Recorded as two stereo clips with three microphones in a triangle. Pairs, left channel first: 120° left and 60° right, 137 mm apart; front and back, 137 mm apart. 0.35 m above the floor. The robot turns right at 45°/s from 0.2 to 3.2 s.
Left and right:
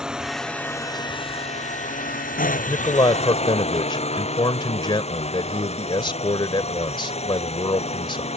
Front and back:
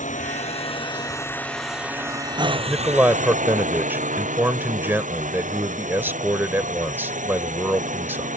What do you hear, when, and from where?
0.0 s a drone: 25° left; by 8.4 s 160° left
2.7 s a man speaking: 95° left; by 8.3 s 120° left